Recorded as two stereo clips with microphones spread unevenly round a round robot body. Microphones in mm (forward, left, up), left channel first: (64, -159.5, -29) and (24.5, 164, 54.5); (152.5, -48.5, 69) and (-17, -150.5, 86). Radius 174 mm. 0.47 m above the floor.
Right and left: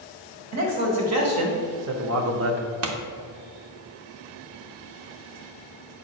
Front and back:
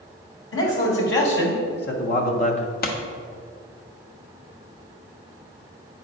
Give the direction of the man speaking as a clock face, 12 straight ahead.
10 o'clock.